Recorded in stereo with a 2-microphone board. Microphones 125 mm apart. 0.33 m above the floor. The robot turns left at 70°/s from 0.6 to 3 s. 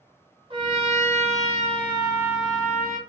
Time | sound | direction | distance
0.5 | a trumpet | 45° right | 1.0 m